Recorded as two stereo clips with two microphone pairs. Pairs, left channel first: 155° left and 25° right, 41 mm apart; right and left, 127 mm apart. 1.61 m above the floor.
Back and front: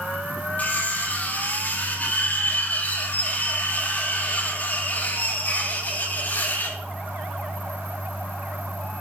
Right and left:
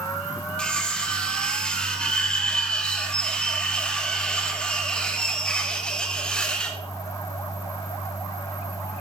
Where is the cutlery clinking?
175° right, 1.5 m.